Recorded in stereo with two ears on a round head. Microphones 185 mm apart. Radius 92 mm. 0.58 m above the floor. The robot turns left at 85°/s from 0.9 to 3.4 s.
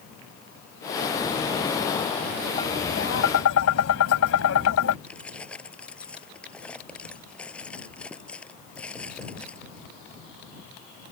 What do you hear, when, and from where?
2.6 s tapping: 155° left; by 5.0 s 85° left
5.1 s keys jangling: 5° left (ahead or behind)